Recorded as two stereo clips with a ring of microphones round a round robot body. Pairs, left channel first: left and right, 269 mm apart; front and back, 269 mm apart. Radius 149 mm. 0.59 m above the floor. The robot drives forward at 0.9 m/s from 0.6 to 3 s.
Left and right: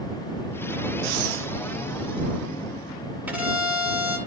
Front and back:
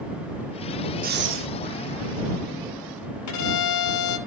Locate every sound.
1.0 s breathing: 120° right, 0.7 m; by 1.5 s 140° right, 0.9 m
3.3 s a violin: 5° right, 3 m